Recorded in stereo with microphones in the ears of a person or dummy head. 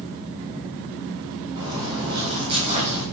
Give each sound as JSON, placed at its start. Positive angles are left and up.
{"t": 1.6, "sound": "footsteps", "side_deg": -20, "distance_m": 3.5}